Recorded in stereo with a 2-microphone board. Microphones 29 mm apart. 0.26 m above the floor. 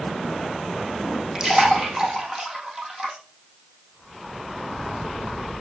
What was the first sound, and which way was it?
A splash, 20° right (ahead or behind).